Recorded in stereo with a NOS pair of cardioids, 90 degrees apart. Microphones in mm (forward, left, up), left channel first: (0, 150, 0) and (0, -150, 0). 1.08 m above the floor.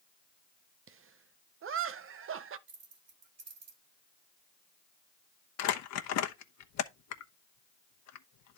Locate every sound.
0.9 s laughter: 45° right, 0.8 m
2.7 s keys jangling: 55° right, 2.5 m
5.6 s crumpling: 65° left, 1.0 m